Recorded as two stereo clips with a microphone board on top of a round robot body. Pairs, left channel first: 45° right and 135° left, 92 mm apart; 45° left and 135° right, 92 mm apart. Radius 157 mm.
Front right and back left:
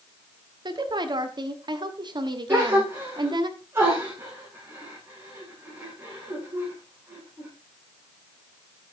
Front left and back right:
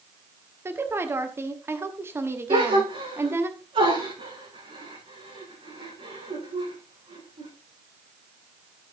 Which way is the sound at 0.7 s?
165° left.